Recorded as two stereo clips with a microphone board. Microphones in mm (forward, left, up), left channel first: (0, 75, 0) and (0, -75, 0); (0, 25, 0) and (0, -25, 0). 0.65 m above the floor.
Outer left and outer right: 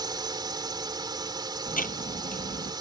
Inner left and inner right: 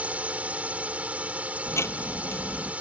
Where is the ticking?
70° left (ahead or behind).